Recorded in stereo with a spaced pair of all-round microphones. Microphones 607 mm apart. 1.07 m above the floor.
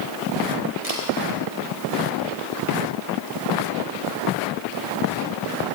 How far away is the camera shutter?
About 4 m.